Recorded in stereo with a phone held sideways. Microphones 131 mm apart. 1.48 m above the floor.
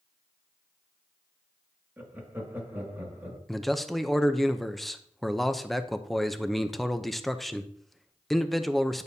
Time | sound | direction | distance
2.0 | laughter | 15° right (ahead or behind) | 2 m
3.5 | a man speaking | centre (ahead or behind) | 0.6 m